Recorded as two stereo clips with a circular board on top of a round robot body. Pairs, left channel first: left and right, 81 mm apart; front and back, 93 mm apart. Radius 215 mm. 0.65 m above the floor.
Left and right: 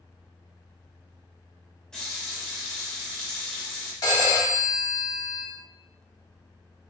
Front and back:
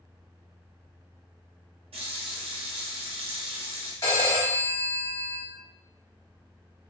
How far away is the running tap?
About 0.7 m.